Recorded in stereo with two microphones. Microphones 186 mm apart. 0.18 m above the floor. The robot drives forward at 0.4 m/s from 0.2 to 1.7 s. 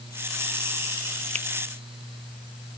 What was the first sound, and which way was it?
A finger snap, 35° right (ahead or behind).